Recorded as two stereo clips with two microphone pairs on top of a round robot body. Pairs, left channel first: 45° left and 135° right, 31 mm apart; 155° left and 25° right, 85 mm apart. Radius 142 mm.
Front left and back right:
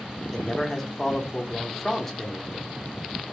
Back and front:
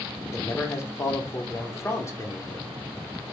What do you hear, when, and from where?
0.3 s a man speaking: 140° left, 1.1 m